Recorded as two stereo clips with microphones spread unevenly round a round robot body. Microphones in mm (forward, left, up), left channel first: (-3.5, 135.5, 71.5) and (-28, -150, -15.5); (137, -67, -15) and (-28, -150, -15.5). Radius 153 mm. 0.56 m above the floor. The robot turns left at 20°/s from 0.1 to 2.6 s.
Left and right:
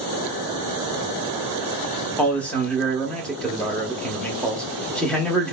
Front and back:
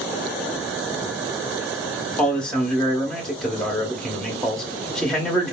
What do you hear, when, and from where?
2.2 s a man speaking: 45° right, 0.6 m; by 5.5 s 50° right, 0.6 m